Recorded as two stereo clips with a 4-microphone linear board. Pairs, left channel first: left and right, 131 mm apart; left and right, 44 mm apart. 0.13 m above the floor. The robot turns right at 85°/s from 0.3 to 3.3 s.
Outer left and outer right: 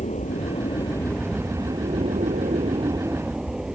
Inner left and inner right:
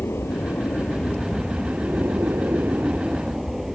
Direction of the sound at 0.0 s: 100° left.